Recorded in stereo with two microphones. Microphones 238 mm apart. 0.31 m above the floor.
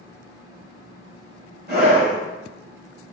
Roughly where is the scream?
Right.